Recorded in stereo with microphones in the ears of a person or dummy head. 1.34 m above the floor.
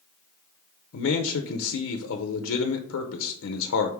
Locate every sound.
0.9 s a man speaking: 70° left (ahead or behind), 0.7 m